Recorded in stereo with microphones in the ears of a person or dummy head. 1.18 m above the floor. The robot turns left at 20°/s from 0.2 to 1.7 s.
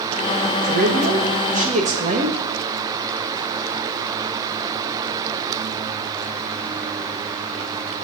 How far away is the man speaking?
About 1.7 m.